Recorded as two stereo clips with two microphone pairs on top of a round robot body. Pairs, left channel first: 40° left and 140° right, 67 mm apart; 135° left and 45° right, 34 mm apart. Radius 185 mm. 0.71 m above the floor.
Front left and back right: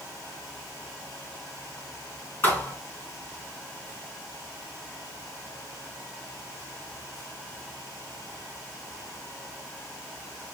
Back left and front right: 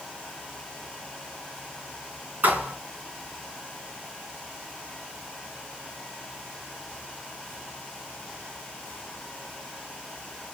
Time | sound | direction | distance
2.4 | a thud | 25° right | 4 m